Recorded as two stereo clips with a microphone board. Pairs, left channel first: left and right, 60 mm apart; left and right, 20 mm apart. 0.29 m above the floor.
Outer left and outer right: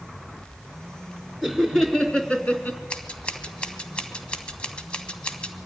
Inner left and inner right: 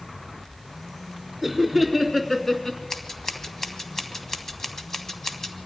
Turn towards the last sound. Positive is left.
turn(degrees=20)  # may be behind; listen again after turning